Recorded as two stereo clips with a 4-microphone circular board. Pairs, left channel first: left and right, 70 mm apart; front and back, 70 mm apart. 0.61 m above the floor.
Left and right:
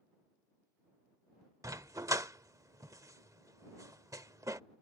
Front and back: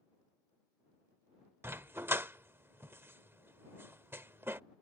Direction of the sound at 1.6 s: 125° right.